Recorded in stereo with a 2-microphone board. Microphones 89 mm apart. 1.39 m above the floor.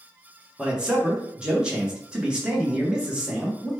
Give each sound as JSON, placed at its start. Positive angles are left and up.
{"t": 0.6, "sound": "a man speaking", "side_deg": -10, "distance_m": 1.1}